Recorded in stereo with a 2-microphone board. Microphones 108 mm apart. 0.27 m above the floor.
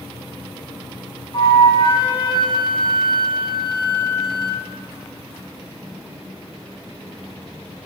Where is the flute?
50° left (ahead or behind), 3 m.